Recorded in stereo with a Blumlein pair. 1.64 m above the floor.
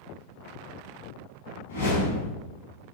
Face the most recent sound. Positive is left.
turn(degrees=65)